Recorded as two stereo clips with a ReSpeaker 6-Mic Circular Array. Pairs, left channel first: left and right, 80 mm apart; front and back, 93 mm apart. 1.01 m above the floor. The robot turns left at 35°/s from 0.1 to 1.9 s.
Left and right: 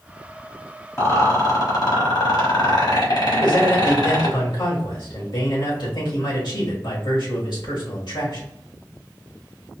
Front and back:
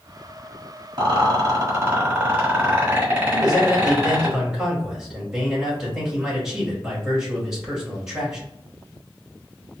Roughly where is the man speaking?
Left.